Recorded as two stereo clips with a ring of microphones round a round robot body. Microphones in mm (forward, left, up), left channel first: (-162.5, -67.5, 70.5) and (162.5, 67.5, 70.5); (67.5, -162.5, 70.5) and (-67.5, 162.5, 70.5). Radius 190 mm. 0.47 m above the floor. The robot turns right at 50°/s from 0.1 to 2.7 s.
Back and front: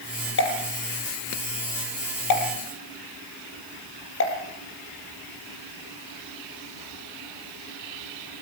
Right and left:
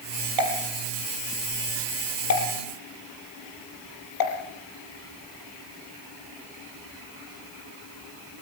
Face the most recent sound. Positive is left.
turn(degrees=-100)